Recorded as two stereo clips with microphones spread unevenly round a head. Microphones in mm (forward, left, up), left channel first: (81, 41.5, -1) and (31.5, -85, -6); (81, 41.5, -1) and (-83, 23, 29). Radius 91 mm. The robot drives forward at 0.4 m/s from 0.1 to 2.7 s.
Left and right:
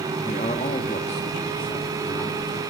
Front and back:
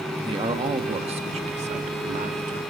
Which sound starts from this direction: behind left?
A man speaking, at 0.2 s.